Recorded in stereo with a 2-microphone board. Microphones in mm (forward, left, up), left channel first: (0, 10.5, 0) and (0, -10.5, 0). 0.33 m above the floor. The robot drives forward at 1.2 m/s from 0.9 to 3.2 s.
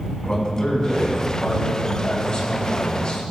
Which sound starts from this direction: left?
A man speaking, at 0.2 s.